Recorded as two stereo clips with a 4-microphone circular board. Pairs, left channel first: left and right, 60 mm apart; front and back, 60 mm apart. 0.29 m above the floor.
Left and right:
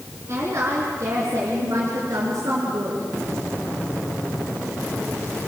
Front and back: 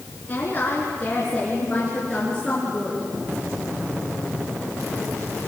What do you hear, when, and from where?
0.3 s a woman speaking: 55° right, 4 m; by 3.1 s 80° right, 4.5 m